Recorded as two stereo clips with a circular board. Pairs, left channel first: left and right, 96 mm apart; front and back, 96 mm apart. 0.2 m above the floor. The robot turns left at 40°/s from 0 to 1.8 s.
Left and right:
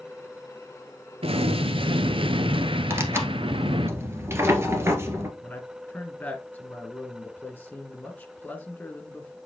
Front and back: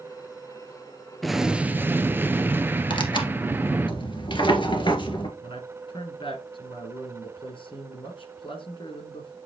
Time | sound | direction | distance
1.2 | an explosion | 90° right | 0.6 m
2.9 | tearing paper | 30° right | 1.6 m
5.4 | a man speaking | 15° left | 3 m